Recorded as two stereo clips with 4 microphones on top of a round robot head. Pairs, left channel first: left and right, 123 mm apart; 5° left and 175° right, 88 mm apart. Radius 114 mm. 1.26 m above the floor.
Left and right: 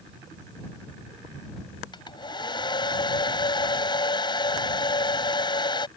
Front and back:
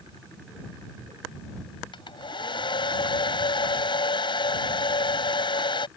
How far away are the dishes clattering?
No dishes clattering in this recording.